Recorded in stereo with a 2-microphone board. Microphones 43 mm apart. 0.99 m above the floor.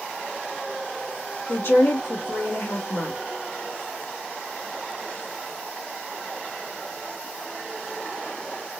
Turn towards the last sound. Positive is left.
turn(degrees=65)  # may be behind; listen again after turning